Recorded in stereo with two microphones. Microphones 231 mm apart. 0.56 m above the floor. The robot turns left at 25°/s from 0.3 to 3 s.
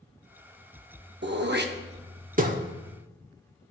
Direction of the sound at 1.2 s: 50° right (ahead or behind).